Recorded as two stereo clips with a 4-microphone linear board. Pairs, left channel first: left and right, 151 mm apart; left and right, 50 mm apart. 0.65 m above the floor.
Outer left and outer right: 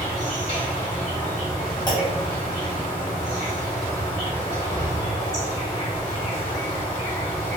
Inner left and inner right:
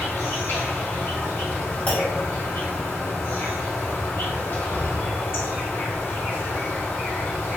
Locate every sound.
0.0 s an insect: 55° left (ahead or behind), 1.8 m
1.9 s a clunk: 25° left (ahead or behind), 1.1 m